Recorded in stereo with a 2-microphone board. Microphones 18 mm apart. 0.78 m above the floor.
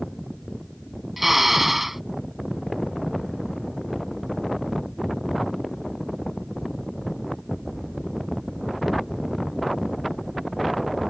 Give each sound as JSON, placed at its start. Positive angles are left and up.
{"t": 1.2, "sound": "a drill", "side_deg": -10}